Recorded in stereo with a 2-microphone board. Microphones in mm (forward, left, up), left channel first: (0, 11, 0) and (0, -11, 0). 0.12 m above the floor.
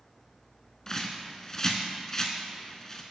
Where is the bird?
25° left (ahead or behind), 0.6 m.